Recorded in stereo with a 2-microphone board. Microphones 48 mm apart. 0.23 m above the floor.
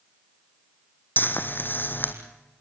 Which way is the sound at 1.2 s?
45° left (ahead or behind).